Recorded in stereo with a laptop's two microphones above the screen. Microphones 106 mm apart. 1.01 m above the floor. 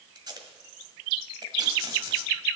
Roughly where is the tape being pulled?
Right.